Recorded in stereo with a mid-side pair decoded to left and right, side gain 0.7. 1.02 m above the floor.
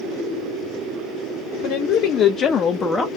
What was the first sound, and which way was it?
A woman speaking, 55° left.